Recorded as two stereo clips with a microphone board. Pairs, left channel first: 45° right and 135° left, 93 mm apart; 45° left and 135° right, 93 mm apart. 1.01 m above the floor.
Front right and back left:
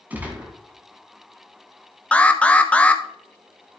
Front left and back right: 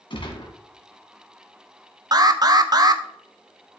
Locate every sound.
0.1 s a gunshot: 65° left, 2 m
2.1 s an alarm: 115° right, 0.7 m